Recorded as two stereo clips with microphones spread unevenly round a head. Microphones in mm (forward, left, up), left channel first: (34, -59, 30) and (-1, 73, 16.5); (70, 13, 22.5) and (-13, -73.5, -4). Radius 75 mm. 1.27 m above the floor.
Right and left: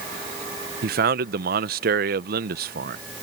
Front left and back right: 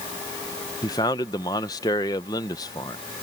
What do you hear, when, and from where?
0.8 s a man speaking: 115° left